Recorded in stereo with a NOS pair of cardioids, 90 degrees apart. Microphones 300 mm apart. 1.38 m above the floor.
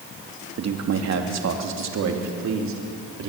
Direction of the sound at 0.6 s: 55° right.